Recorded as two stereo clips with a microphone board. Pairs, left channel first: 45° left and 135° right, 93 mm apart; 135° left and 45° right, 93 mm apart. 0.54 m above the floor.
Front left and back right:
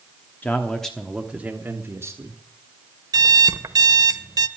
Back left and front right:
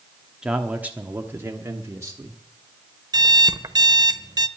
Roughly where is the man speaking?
Ahead.